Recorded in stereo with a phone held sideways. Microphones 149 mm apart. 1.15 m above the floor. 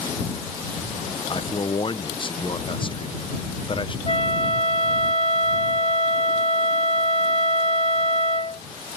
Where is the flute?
40° left (ahead or behind).